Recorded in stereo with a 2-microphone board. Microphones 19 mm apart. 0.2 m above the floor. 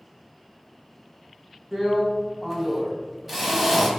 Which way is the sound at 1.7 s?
10° right (ahead or behind).